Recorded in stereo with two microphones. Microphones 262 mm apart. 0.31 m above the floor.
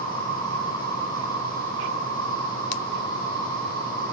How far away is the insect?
About 9.5 m.